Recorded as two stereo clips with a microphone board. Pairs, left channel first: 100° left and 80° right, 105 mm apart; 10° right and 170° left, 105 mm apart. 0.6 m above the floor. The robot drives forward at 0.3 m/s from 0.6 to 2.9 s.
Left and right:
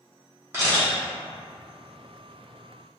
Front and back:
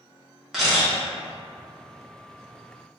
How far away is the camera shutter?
About 1.1 m.